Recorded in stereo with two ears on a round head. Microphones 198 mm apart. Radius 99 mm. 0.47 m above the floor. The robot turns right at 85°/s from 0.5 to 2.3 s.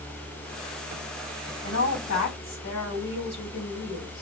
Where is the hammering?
I don't hear hammering.